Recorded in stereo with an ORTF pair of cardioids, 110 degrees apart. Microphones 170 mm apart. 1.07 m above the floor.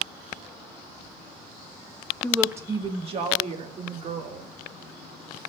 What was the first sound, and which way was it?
A woman speaking, 10° left.